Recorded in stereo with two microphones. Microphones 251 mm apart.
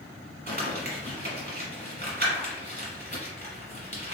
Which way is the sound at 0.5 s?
40° right (ahead or behind).